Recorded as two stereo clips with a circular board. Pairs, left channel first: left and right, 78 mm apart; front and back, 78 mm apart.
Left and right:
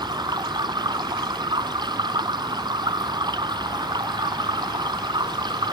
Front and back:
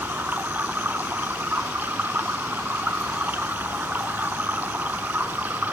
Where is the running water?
115° right.